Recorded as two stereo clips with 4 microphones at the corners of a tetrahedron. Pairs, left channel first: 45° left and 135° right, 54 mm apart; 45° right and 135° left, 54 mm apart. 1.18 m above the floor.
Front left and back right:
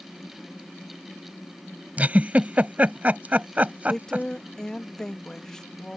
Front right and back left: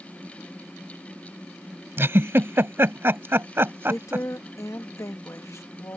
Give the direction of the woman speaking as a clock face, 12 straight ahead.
1 o'clock.